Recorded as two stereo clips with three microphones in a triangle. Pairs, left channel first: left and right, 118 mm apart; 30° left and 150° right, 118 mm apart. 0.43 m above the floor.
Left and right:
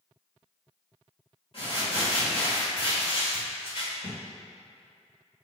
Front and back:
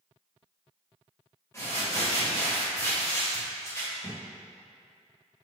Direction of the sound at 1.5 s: 90° left.